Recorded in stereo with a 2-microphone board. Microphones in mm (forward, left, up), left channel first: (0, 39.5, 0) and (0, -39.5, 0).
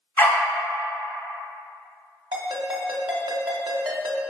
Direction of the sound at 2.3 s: 75° right (ahead or behind).